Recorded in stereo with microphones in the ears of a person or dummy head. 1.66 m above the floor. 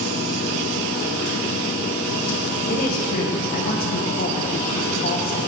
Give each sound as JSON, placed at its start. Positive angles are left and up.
{"t": 0.0, "sound": "a machine running", "side_deg": 55, "distance_m": 1.0}
{"t": 2.7, "sound": "a woman speaking", "side_deg": 45, "distance_m": 0.8}